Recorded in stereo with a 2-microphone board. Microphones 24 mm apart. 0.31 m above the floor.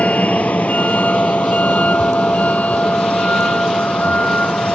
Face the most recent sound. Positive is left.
turn(degrees=80)